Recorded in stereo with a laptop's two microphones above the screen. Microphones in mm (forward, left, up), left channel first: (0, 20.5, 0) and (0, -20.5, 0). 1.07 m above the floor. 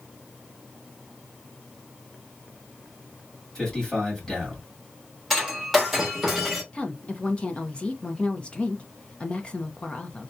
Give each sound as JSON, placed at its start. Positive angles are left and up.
{"t": 3.5, "sound": "a man speaking", "side_deg": 15, "distance_m": 1.9}
{"t": 5.3, "sound": "breaking glass", "side_deg": -5, "distance_m": 1.2}
{"t": 6.7, "sound": "a woman speaking", "side_deg": 25, "distance_m": 0.6}